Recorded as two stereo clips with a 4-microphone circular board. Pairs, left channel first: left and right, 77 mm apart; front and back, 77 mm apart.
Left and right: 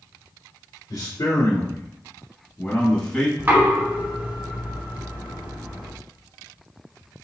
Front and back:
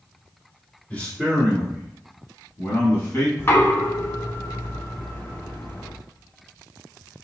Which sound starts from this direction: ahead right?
Knocking, at 3.4 s.